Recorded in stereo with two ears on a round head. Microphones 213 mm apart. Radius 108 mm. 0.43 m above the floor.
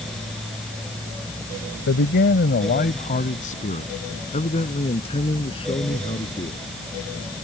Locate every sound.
1.9 s a man speaking: 50° left (ahead or behind); by 6.6 s 20° left (ahead or behind)